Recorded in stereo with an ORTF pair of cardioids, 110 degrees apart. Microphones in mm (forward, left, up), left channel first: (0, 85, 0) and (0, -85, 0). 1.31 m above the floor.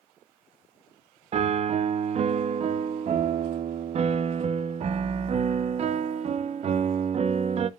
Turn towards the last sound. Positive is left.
turn(degrees=-40)